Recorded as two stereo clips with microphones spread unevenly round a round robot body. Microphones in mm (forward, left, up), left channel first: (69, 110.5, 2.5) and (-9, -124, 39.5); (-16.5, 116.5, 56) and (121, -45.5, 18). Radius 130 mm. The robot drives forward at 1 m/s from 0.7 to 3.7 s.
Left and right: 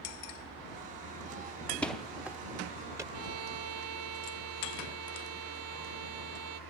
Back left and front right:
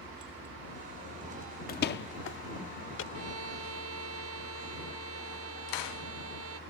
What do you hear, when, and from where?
1.7 s a door slam: 130° left; by 3.0 s 170° left
3.1 s a violin: 80° right; by 6.6 s 85° right